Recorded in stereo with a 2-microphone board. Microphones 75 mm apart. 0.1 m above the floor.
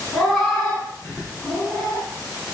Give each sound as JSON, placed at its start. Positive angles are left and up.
{"t": 0.1, "sound": "a cat meowing", "side_deg": 5, "distance_m": 4.0}